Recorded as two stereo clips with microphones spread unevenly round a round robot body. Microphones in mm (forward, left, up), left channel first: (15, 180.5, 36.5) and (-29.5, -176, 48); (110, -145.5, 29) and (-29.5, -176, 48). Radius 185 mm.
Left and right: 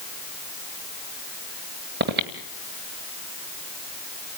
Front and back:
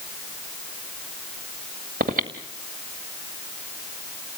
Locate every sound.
2.0 s breathing: 160° right, 2 m